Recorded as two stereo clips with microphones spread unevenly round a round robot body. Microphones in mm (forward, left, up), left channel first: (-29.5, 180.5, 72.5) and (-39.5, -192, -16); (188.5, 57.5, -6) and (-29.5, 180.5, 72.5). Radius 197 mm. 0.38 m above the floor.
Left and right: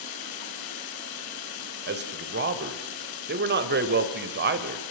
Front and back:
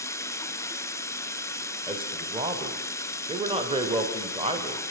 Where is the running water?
50° left, 1.9 m.